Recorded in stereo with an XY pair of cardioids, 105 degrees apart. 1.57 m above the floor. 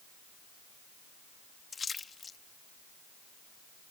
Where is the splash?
35° left.